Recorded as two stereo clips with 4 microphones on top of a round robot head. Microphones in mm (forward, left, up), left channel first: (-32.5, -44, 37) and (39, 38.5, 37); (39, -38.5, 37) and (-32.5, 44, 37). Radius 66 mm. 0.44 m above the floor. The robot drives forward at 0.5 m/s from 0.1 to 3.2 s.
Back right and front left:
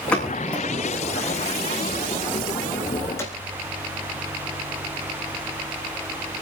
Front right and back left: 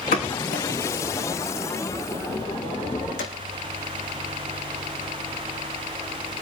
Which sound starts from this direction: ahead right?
A pop, at 0.1 s.